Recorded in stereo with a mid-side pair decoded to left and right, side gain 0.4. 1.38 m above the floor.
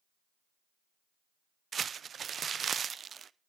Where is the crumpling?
55° right, 0.6 m.